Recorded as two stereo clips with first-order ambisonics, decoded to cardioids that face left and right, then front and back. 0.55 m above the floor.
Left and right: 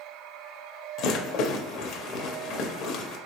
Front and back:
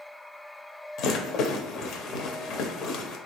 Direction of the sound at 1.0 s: 45° left.